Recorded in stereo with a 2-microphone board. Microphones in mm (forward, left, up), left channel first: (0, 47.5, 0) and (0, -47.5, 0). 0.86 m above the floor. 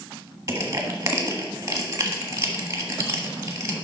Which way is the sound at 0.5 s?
30° right (ahead or behind).